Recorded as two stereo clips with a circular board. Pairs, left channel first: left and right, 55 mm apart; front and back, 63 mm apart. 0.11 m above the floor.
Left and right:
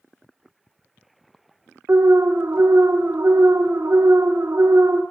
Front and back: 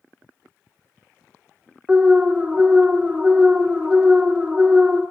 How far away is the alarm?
About 1.2 m.